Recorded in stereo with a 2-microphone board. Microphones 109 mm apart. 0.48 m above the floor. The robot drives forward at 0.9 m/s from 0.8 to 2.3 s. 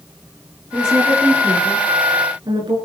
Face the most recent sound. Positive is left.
turn(degrees=-45)  # may be behind; listen again after turning